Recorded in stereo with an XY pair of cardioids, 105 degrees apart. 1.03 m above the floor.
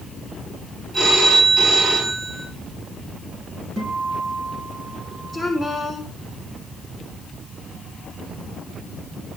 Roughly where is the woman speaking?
Ahead.